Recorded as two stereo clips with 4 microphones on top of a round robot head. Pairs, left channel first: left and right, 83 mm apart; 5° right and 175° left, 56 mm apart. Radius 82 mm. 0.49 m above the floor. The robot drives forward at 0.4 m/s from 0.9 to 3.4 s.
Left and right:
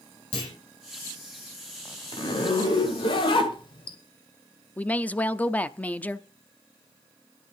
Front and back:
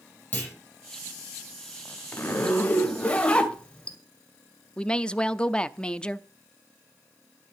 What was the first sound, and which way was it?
A clunk, 60° left.